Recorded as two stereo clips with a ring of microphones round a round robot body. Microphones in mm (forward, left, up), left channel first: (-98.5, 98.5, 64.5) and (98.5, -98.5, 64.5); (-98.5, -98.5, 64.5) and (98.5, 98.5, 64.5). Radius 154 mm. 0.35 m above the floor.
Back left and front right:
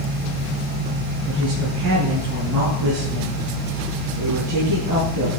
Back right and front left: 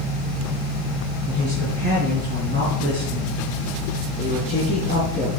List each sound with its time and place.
1.2 s a woman speaking: 5° left, 6 m; by 5.3 s 30° right, 6.5 m